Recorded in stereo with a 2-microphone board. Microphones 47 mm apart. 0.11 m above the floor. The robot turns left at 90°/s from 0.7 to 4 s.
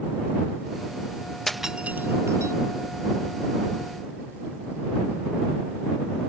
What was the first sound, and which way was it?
Breaking glass, 10° left (ahead or behind).